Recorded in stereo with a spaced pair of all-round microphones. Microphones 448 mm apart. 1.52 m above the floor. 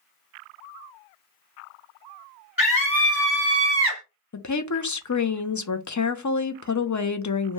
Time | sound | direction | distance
2.6 | a scream | 20° left (ahead or behind) | 1.0 m
4.3 | a woman speaking | 45° left (ahead or behind) | 0.5 m